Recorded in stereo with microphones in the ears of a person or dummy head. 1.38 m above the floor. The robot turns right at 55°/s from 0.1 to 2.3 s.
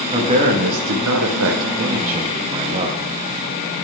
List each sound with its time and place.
0.1 s a man speaking: 155° right, 1.4 m; by 3.0 s 35° right, 1.4 m